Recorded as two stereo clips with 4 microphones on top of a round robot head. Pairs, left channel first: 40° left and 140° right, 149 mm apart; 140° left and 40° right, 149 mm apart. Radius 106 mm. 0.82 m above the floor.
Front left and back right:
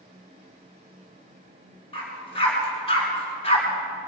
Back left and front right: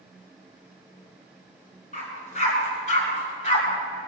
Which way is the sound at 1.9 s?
95° left.